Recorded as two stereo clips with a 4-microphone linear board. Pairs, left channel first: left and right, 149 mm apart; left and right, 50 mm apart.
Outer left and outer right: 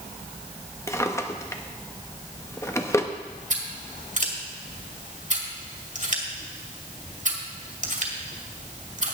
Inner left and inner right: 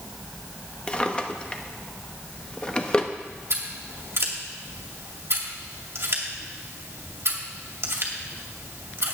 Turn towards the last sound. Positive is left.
turn(degrees=-55)  # may be behind; listen again after turning